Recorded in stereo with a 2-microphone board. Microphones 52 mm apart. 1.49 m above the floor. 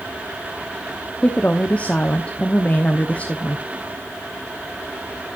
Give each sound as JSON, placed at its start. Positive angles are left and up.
{"t": 1.2, "sound": "a woman speaking", "side_deg": 25, "distance_m": 1.0}